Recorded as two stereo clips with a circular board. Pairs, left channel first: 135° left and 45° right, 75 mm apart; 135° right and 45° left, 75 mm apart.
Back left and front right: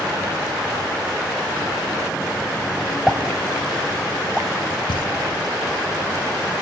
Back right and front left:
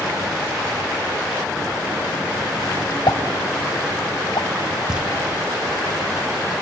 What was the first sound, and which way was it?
A pop, 125° right.